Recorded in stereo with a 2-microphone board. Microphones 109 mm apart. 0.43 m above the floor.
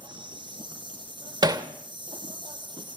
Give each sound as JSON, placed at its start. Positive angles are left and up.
{"t": 0.0, "sound": "an insect", "side_deg": -45, "distance_m": 3.5}
{"t": 1.4, "sound": "hammering", "side_deg": -40, "distance_m": 1.5}